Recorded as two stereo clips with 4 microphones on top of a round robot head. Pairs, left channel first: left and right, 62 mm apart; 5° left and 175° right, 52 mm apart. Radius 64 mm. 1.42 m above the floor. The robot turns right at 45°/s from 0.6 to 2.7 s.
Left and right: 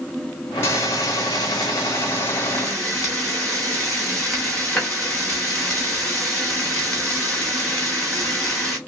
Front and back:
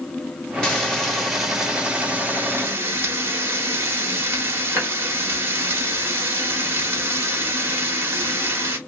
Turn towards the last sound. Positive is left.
turn(degrees=170)